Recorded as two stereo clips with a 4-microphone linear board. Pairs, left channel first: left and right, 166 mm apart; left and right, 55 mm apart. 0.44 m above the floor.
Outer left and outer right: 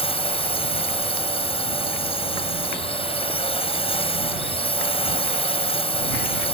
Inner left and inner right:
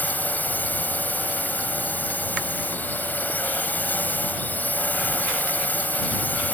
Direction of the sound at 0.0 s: 35° left (ahead or behind).